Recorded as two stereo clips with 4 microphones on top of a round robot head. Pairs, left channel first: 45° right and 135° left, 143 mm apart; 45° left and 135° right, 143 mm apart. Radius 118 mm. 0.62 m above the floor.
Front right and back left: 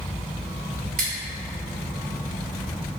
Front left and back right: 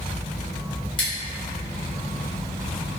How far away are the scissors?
About 1.2 m.